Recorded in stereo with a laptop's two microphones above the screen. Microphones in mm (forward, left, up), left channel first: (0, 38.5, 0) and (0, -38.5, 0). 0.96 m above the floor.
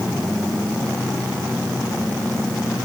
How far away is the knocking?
No knocking in this recording.